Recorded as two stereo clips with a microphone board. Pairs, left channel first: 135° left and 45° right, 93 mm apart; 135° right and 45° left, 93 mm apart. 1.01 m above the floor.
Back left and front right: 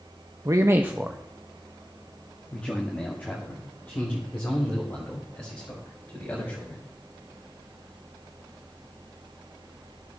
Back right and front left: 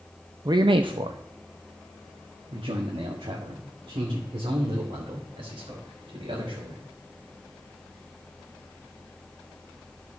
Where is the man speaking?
5° left, 0.6 m; by 6.8 s 75° left, 3.5 m.